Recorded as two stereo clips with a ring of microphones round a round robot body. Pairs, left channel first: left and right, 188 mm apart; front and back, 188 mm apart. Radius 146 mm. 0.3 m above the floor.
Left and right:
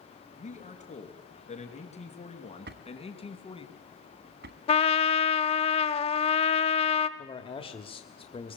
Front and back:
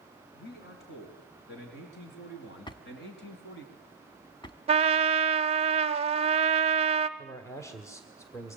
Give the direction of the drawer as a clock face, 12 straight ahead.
2 o'clock.